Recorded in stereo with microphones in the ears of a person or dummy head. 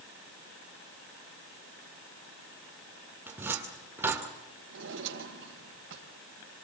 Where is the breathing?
I don't hear breathing.